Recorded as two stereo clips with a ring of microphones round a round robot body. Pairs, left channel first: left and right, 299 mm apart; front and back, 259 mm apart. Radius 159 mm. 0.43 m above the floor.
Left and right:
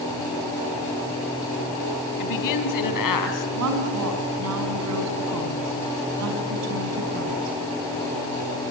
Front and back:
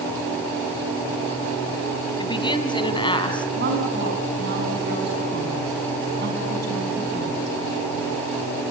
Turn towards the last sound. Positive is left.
turn(degrees=-125)